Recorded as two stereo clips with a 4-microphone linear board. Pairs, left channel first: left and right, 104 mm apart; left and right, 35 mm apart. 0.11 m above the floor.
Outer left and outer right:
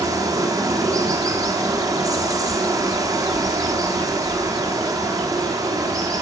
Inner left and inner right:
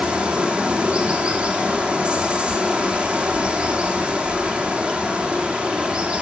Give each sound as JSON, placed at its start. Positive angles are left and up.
{"t": 0.0, "sound": "running water", "side_deg": -35, "distance_m": 4.5}